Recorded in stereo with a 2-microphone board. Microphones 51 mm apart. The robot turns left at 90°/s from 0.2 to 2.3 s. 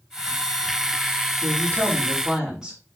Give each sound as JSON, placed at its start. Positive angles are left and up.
{"t": 1.4, "sound": "a woman speaking", "azimuth_deg": -85, "distance_m": 4.5}